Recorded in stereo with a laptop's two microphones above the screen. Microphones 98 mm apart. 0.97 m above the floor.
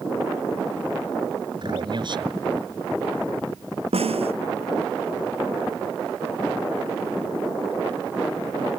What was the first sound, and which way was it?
A man speaking, 50° right (ahead or behind).